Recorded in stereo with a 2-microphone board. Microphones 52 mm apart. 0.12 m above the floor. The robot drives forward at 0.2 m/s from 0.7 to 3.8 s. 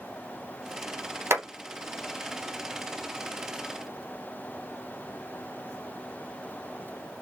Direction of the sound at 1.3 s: 50° right (ahead or behind).